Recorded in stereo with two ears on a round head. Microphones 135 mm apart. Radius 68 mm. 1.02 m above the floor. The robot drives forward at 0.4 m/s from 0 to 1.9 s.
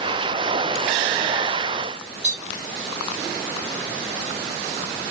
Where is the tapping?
30° right (ahead or behind), 2.5 m.